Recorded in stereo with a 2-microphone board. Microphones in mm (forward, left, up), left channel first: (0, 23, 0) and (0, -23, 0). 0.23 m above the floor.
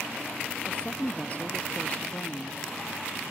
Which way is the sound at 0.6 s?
30° left (ahead or behind).